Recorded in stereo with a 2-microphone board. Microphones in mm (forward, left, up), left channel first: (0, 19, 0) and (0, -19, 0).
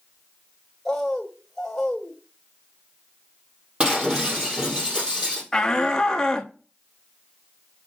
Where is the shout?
15° left (ahead or behind), 0.7 m.